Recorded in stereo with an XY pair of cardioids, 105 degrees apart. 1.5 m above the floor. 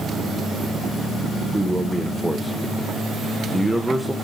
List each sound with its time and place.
1.5 s a man speaking: 5° right, 1.3 m